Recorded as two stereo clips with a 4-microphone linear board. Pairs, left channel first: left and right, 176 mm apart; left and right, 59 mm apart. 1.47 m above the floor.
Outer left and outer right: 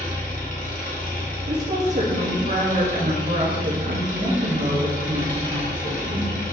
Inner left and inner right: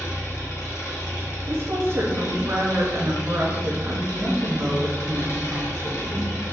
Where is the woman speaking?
45° right (ahead or behind), 0.7 m.